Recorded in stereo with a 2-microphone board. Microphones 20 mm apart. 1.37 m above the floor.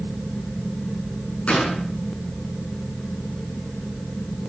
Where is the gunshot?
85° left, 7.5 m.